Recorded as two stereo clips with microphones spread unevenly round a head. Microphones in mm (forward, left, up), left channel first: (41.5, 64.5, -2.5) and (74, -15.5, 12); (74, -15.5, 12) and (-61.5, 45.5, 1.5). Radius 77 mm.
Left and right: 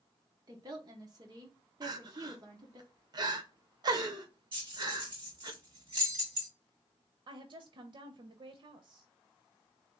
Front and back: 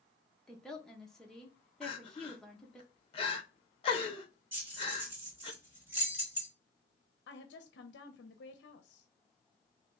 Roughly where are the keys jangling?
Behind right.